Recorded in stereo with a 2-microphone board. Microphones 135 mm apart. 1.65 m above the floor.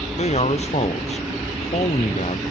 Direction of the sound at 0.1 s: 50° left (ahead or behind).